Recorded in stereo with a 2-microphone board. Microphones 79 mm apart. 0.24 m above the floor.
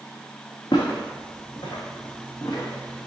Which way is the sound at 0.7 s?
80° left.